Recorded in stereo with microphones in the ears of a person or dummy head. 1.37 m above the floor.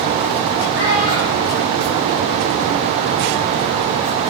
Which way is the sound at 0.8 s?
70° left (ahead or behind).